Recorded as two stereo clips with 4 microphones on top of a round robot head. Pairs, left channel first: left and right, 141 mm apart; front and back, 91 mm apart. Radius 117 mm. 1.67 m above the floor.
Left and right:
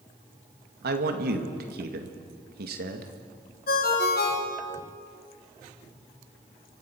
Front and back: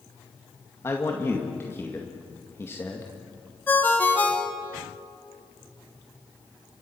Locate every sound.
0.8 s a man speaking: 75° right, 2 m
3.7 s a ringtone: 70° left, 2.5 m